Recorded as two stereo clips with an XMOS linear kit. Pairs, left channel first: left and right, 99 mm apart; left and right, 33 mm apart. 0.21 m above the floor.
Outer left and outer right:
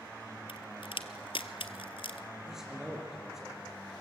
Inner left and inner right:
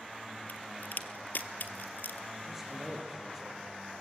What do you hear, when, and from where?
0.5 s a crack: 65° left (ahead or behind), 1.2 m
2.5 s a man speaking: 5° right (ahead or behind), 5.5 m